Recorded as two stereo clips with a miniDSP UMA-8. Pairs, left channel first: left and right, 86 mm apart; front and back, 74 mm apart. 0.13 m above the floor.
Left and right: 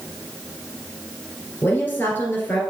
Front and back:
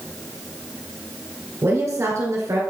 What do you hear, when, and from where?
1.6 s a woman speaking: 150° left, 1.8 m